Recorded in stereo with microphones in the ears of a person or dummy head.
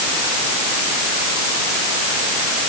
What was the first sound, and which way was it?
Only background noise.